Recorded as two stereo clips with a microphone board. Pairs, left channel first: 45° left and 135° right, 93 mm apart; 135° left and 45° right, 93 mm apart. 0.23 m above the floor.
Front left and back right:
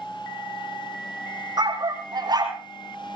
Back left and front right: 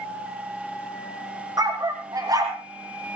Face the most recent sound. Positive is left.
turn(degrees=-95)